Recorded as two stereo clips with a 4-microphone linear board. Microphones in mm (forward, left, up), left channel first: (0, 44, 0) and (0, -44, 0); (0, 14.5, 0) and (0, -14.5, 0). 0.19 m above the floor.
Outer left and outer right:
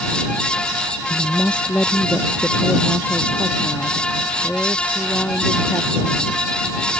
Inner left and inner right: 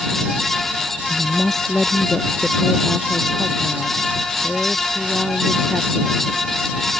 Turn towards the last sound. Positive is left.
turn(degrees=15)  # may be behind; listen again after turning